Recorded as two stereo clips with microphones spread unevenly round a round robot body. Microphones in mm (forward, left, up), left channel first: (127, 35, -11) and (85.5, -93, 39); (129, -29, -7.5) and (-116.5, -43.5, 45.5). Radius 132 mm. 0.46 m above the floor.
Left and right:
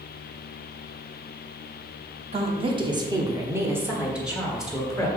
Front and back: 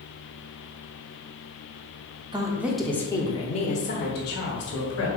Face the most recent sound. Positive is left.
turn(degrees=-5)